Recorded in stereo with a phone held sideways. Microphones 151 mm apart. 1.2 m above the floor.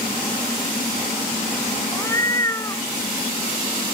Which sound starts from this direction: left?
A cat meowing, at 1.9 s.